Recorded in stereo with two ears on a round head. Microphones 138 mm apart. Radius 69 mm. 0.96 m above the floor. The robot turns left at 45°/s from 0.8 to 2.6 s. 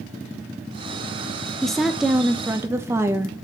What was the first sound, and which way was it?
A woman speaking, 5° left (ahead or behind).